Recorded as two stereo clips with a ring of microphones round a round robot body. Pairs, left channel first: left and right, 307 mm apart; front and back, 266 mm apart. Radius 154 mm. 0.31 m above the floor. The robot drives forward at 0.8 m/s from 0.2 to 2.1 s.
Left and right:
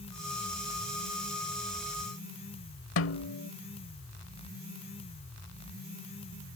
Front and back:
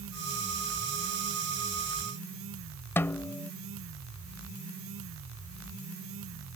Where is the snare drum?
75° left.